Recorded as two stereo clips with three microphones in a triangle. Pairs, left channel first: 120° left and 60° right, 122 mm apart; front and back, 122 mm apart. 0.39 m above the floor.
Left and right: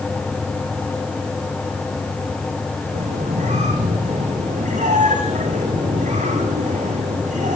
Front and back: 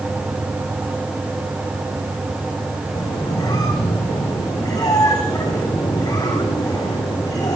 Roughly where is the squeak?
Ahead right.